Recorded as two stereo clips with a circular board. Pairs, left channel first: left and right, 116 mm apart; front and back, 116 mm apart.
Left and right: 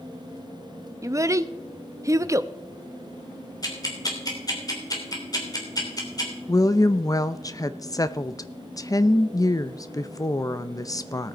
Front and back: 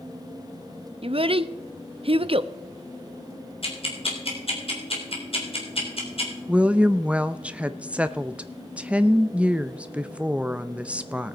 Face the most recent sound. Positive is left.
turn(degrees=110)